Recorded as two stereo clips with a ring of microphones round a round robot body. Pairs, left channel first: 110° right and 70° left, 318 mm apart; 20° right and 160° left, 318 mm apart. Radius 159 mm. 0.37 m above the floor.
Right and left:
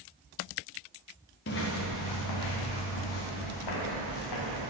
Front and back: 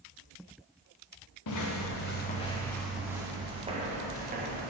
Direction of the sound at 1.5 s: 55° right.